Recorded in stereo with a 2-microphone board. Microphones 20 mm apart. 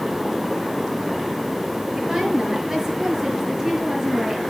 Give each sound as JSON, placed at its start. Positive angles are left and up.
{"t": 1.9, "sound": "a woman speaking", "side_deg": -30, "distance_m": 6.0}